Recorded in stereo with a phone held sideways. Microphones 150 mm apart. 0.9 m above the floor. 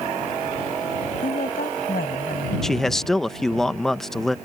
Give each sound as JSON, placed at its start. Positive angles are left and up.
{"t": 1.2, "sound": "a woman speaking", "side_deg": 75}
{"t": 2.6, "sound": "a man speaking", "side_deg": 0}